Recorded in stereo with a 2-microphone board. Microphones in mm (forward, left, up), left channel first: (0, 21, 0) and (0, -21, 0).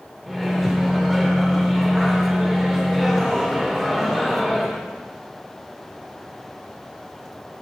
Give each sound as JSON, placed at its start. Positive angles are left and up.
{"t": 0.3, "sound": "a microwave", "side_deg": 5, "distance_m": 1.4}